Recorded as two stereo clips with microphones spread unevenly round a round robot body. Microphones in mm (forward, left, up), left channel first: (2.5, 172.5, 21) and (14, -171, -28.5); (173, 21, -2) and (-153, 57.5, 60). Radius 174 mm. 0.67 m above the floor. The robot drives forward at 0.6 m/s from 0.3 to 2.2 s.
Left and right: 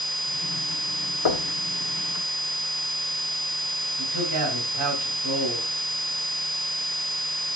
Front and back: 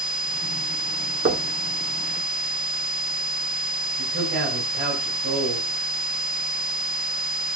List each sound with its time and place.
1.2 s knocking: 110° left, 1.6 m; by 1.5 s 115° left, 1.6 m
4.0 s a man speaking: 130° right, 4.5 m